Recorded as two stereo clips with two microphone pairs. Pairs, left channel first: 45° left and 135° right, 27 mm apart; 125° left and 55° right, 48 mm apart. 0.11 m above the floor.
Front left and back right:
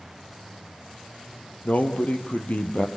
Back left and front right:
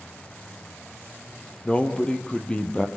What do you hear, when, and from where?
1.6 s a man speaking: 65° left, 2.5 m